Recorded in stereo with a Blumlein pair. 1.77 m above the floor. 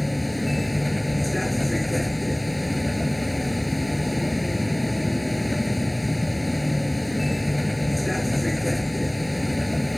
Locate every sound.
0.0 s a vehicle: 5° left